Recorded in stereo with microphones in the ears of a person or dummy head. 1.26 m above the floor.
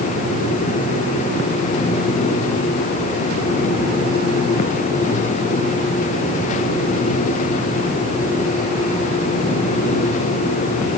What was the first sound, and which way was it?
Only background noise.